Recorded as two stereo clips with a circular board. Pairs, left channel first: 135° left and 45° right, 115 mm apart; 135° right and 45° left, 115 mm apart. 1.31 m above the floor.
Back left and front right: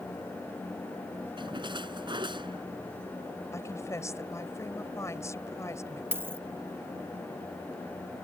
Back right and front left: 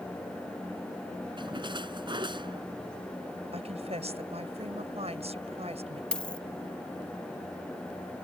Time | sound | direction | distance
1.4 | a splash | straight ahead | ?
3.5 | a woman speaking | 70° left | ?
6.1 | a dropped coin | 70° right | ?